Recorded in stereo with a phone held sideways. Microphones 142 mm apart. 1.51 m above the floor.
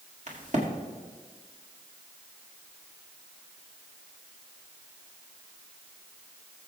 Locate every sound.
0.3 s a crack: 55° right (ahead or behind), 2 m